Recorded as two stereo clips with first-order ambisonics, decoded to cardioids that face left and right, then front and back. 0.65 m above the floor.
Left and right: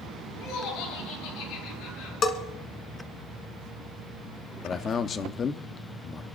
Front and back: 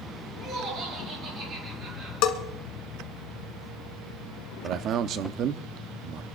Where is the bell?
25° left, 1.3 m.